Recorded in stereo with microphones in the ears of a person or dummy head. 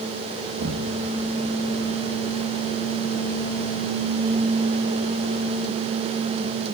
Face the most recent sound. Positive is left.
turn(degrees=-60)  # may be behind; listen again after turning